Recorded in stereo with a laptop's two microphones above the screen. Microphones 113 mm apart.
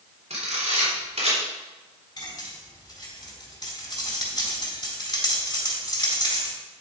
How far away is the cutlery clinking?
About 4 m.